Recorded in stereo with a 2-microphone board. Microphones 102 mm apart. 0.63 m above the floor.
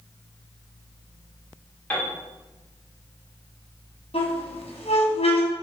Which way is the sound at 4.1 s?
80° left.